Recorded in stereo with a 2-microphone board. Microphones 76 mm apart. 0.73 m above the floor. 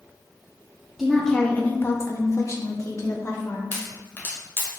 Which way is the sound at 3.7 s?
30° left (ahead or behind).